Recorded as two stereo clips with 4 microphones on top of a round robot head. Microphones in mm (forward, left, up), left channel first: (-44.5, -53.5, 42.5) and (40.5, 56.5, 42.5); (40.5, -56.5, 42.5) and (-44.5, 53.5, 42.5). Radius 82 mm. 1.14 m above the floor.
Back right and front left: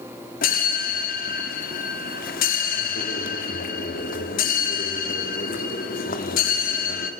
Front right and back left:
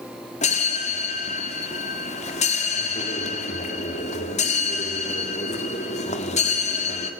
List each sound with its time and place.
0.4 s a bell: 100° right, 2 m